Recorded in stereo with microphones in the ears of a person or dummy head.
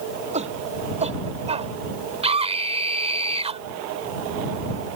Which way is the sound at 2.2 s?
30° right (ahead or behind).